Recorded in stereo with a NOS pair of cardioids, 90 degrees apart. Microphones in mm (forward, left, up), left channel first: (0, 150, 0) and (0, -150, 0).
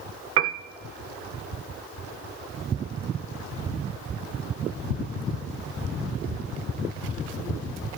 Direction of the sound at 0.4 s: 50° right.